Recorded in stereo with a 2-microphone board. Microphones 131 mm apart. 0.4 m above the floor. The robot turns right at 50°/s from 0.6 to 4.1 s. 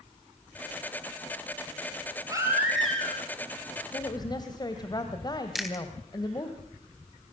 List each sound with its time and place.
2.3 s a baby crying: 25° right, 5.5 m; by 3.2 s 20° left, 5.5 m
3.9 s a woman speaking: 25° left (ahead or behind), 1.8 m; by 6.5 s 30° left (ahead or behind), 1.8 m
5.5 s chewing: centre (ahead or behind), 3 m